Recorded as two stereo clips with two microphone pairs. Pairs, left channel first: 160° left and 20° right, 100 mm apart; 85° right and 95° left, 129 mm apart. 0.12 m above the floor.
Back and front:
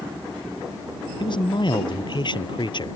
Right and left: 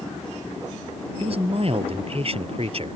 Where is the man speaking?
130° left.